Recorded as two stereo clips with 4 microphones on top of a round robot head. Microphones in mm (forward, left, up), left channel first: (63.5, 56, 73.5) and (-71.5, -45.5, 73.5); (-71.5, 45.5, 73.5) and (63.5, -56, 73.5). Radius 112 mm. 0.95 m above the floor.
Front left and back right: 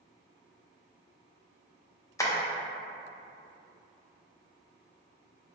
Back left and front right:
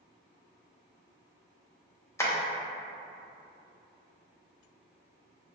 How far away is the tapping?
About 0.8 m.